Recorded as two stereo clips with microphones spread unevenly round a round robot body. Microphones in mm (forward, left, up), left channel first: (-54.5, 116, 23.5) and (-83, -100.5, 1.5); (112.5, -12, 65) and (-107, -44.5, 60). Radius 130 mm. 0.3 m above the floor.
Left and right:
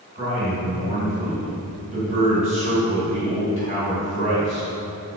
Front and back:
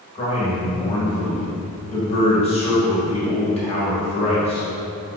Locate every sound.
0.1 s a man speaking: 50° right, 1.5 m